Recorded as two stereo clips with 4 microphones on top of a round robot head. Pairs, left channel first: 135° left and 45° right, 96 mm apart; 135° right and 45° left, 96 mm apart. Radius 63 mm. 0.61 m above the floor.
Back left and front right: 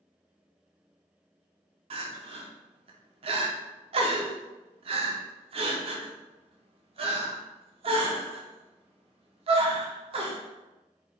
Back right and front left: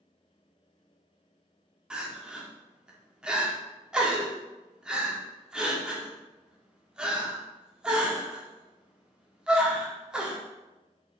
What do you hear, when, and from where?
1.9 s crying: 35° right, 0.8 m